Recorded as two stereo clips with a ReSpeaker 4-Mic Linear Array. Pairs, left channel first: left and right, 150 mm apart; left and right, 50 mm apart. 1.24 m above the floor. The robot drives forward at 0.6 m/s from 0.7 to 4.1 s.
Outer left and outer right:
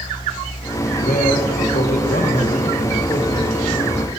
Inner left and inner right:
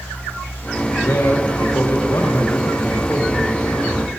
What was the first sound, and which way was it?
A man speaking, 75° left (ahead or behind).